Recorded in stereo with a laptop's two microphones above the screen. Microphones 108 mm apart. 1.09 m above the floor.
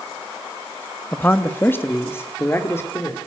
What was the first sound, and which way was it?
A man speaking, 20° left (ahead or behind).